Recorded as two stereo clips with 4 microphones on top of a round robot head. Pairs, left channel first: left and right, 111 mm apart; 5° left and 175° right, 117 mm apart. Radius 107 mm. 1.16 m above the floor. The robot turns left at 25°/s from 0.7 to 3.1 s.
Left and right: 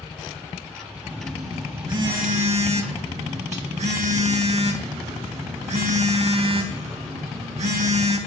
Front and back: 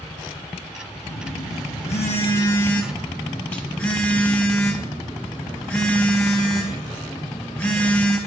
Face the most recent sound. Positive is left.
turn(degrees=-75)